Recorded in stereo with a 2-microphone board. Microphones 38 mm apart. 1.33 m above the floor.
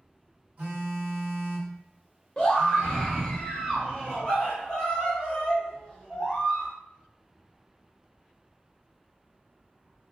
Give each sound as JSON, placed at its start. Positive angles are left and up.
{"t": 0.6, "sound": "a phone buzzing", "side_deg": -50, "distance_m": 1.5}
{"t": 2.4, "sound": "a scream", "side_deg": 20, "distance_m": 0.9}